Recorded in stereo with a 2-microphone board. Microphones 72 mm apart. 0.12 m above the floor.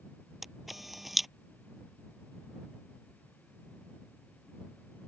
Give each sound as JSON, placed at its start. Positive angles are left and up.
{"t": 0.4, "sound": "a camera shutter", "side_deg": 0}